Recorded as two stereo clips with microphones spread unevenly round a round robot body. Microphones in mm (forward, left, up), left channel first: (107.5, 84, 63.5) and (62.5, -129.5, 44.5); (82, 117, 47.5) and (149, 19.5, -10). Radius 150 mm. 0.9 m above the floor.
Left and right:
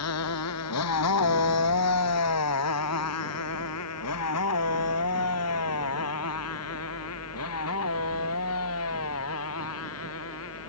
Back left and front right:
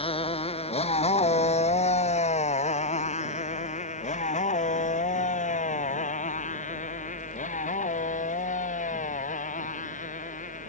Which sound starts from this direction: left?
A motorcycle, at 0.0 s.